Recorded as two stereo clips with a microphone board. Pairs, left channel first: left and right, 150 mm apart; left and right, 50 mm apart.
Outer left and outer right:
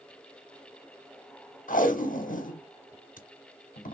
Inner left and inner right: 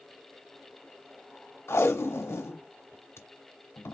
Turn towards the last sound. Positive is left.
turn(degrees=60)  # may be behind; listen again after turning